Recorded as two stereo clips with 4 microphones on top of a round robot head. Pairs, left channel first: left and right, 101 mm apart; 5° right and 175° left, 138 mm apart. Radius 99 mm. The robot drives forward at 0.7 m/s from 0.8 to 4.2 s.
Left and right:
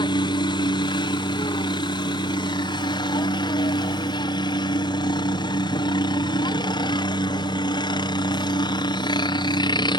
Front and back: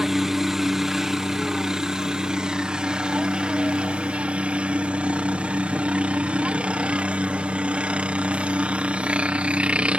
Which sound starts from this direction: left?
A helicopter, at 0.0 s.